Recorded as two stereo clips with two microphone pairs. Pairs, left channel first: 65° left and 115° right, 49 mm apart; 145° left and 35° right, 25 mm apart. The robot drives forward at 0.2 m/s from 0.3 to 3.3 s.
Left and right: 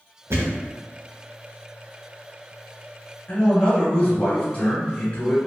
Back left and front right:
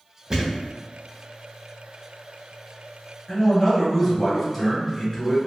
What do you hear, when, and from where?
0.3 s a thud: 95° right, 0.9 m; by 0.7 s 100° right, 0.9 m
3.3 s a man speaking: 95° left, 1.5 m